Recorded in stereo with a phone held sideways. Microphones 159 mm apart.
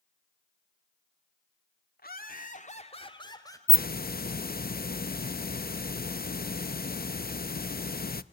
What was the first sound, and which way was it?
Laughter, 75° left (ahead or behind).